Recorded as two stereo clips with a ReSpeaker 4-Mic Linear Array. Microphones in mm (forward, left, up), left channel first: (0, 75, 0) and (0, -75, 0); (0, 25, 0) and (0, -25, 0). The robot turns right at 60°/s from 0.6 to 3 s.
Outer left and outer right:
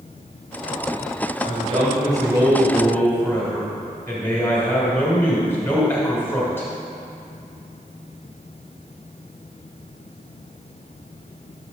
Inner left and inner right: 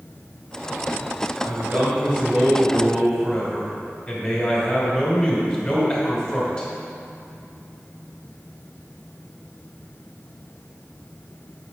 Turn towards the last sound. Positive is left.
turn(degrees=15)